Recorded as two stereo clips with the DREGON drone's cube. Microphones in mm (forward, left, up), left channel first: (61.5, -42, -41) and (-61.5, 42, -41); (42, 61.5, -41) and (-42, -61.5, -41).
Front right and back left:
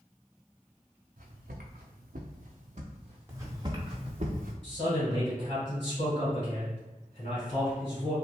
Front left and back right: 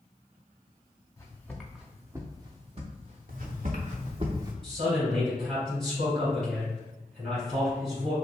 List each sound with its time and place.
1.2 s footsteps: 125° left, 0.8 m; by 4.3 s 145° right, 1.4 m
3.3 s footsteps: 140° right, 1.1 m; by 4.5 s 170° left, 0.7 m
4.6 s a man speaking: 35° right, 1.7 m